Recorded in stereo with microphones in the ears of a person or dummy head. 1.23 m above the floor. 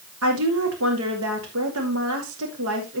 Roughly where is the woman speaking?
Right.